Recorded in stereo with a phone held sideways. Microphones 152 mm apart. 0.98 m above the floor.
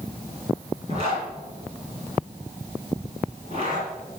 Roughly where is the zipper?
Right.